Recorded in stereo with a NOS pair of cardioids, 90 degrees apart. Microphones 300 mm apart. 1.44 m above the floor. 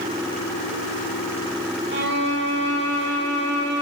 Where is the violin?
40° right, 1.5 m.